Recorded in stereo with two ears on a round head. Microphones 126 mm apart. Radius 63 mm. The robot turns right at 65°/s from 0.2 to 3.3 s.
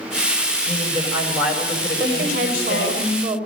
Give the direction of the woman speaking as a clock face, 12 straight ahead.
3 o'clock.